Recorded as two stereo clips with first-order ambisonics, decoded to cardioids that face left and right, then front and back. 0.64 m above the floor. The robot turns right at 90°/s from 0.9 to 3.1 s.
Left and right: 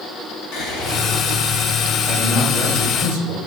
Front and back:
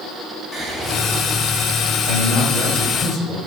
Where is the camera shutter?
No camera shutter in this recording.